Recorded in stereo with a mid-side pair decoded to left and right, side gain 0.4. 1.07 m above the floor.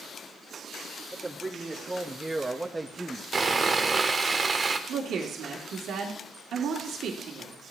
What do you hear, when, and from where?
1.1 s a man speaking: 15° right, 2.5 m; by 3.2 s 10° right, 0.9 m
3.3 s sawing: 35° right, 1.4 m
4.9 s a woman speaking: 70° right, 2 m